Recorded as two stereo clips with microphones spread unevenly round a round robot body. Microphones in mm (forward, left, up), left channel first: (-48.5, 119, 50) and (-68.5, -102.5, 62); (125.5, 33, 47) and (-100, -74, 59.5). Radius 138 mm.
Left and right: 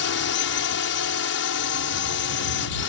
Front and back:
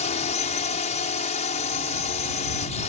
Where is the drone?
85° left.